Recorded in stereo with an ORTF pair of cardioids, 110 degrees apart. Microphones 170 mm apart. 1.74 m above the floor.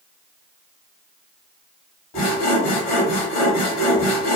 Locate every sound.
2.1 s sawing: 60° left, 1.3 m